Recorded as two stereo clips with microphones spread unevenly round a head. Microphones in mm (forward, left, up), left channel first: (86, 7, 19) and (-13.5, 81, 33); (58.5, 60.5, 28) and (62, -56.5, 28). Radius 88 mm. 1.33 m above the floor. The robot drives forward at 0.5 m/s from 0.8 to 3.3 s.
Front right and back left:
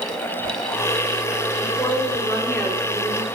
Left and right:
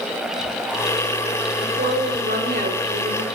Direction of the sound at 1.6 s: 105° right.